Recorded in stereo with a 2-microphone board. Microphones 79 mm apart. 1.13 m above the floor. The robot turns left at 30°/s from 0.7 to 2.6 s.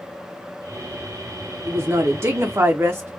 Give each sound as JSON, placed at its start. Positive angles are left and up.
{"t": 1.6, "sound": "a woman speaking", "side_deg": -35, "distance_m": 0.5}